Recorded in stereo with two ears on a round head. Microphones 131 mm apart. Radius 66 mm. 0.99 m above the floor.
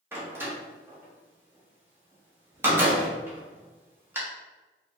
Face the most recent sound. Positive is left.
turn(degrees=-15)  # may be behind; listen again after turning